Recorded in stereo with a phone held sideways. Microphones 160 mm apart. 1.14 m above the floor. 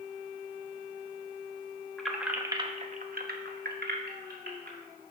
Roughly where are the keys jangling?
Centre.